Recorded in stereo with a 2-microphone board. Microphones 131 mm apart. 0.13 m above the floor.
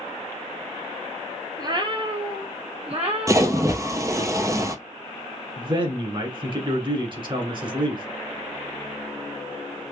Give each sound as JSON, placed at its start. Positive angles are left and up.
{"t": 1.6, "sound": "a cat meowing", "side_deg": -30, "distance_m": 0.6}
{"t": 3.3, "sound": "a splash", "side_deg": -25, "distance_m": 0.5}
{"t": 5.6, "sound": "a man speaking", "side_deg": -40, "distance_m": 1.3}